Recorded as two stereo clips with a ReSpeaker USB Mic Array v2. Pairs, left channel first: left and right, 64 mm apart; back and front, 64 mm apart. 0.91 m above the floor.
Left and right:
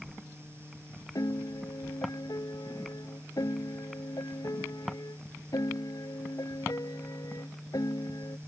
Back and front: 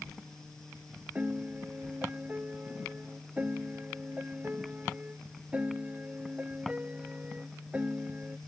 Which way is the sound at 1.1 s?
70° left.